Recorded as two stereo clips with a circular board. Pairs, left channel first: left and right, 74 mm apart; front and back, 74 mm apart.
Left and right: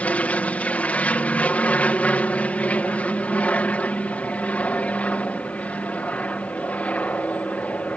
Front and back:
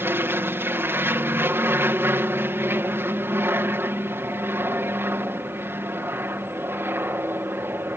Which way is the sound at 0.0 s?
150° left.